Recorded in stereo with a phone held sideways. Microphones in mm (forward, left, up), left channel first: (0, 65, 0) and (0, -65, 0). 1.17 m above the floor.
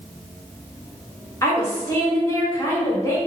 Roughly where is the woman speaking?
Left.